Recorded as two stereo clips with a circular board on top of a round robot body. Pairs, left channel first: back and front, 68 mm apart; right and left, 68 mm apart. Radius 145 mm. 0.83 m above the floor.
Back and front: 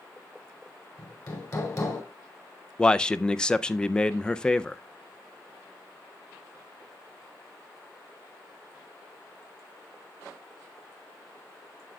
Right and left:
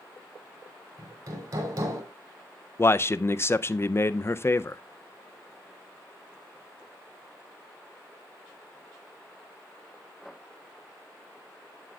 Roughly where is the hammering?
Behind left.